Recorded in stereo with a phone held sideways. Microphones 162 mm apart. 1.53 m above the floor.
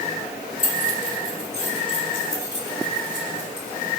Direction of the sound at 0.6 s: 50° left (ahead or behind).